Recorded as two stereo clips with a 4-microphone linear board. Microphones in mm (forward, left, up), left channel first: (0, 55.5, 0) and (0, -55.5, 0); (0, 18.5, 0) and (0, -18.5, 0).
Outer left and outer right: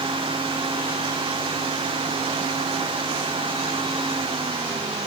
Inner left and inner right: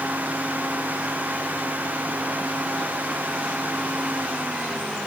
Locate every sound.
Only background noise.